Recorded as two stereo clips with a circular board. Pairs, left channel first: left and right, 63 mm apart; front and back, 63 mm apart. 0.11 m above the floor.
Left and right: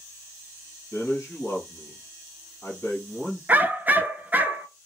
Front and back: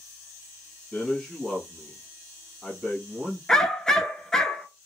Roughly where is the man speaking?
Left.